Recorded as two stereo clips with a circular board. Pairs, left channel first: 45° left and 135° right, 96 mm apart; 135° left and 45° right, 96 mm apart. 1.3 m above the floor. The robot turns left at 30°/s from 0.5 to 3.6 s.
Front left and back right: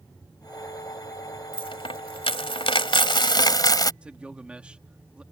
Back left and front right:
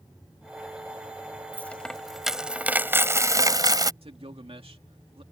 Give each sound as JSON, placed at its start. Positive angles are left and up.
{"t": 1.5, "sound": "a dropped coin", "azimuth_deg": 65}
{"t": 4.0, "sound": "a man speaking", "azimuth_deg": -55}